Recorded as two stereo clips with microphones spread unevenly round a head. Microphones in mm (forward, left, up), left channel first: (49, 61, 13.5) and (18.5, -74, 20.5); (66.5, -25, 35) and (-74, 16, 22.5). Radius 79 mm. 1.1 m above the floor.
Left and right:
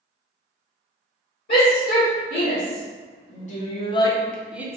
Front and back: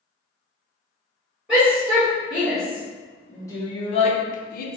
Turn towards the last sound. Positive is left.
turn(degrees=-30)